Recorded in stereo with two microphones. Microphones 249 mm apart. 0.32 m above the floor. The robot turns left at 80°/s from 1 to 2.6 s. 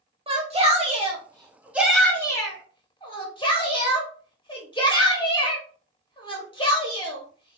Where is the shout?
25° right (ahead or behind), 0.9 m; by 7.6 s 20° left (ahead or behind), 0.9 m.